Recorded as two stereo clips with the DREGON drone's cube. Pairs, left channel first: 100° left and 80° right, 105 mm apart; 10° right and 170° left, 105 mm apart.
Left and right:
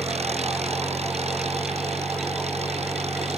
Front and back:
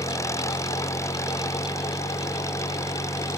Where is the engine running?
75° right.